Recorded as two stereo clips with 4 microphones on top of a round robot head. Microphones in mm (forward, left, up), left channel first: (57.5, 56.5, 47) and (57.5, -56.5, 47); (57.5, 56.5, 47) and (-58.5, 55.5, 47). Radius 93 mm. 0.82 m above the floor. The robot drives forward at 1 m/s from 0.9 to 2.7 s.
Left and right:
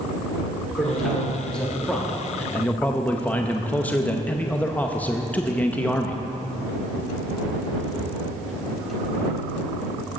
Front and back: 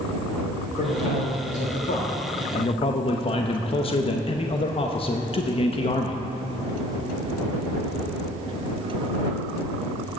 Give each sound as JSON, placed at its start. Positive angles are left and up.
{"t": 0.8, "sound": "a man speaking", "azimuth_deg": 5, "distance_m": 2.5}